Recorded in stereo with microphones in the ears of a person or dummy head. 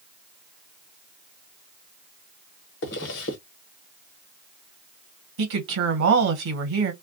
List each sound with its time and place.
2.8 s a zipper: 70° left (ahead or behind), 1.1 m
5.4 s a woman speaking: 70° right (ahead or behind), 1.2 m